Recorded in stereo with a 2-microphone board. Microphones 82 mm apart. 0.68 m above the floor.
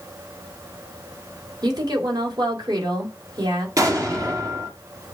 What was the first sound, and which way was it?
A woman speaking, 55° right (ahead or behind).